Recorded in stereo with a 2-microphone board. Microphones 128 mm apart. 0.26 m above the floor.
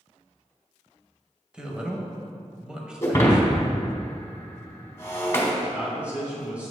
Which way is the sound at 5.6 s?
10° right (ahead or behind).